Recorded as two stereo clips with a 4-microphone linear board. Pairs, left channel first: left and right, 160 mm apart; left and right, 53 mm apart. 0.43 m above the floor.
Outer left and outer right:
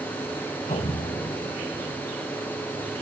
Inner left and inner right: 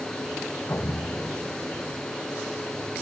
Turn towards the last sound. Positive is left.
turn(degrees=50)  # may be behind; listen again after turning